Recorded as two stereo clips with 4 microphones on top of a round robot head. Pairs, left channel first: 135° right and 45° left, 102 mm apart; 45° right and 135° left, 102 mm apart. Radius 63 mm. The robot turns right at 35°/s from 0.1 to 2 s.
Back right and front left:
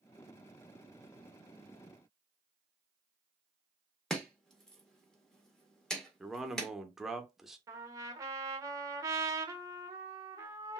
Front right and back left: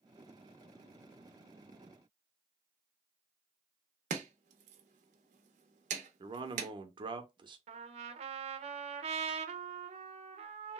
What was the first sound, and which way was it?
Chopping, 140° left.